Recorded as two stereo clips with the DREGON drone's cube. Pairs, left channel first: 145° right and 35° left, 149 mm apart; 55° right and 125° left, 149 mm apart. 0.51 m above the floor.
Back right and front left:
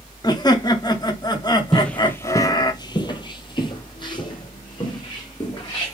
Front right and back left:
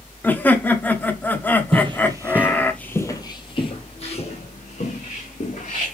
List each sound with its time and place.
0.2 s laughter: 120° right, 0.8 m
1.7 s footsteps: 130° left, 0.6 m; by 6.0 s 85° right, 2.0 m